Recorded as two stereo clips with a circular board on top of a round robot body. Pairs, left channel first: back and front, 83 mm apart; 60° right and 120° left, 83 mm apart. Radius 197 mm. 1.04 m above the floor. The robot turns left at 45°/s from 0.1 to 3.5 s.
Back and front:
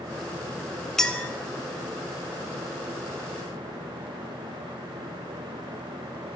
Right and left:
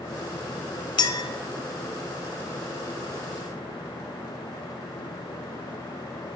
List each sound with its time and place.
1.0 s a clink: 95° right, 0.5 m; by 1.3 s 110° right, 0.5 m